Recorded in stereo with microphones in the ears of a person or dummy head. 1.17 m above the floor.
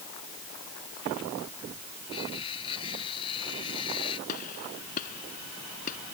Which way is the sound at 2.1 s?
20° left (ahead or behind).